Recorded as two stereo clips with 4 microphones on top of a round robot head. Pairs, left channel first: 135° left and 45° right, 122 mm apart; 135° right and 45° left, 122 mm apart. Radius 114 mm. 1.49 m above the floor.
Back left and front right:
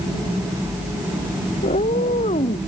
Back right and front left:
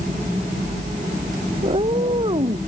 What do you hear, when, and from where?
1.6 s a cat meowing: 100° left